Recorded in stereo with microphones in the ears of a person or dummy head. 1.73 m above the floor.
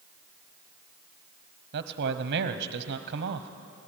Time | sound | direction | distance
1.7 | a man speaking | 55° right (ahead or behind) | 1.0 m